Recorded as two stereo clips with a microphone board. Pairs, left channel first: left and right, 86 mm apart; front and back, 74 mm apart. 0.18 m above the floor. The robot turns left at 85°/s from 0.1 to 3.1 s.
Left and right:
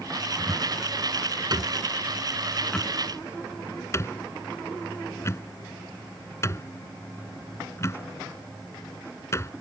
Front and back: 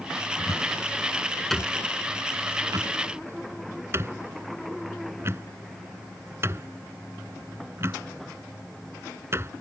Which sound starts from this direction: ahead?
A cupboard door, at 0.4 s.